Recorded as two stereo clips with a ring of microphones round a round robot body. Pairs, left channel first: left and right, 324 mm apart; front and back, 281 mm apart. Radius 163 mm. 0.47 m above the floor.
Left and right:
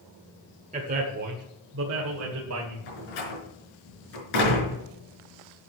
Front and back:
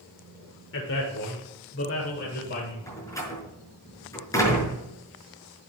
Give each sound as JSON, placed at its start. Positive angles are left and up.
{"t": 0.7, "sound": "a man speaking", "azimuth_deg": -30, "distance_m": 1.6}
{"t": 2.9, "sound": "a door slam", "azimuth_deg": 80, "distance_m": 5.5}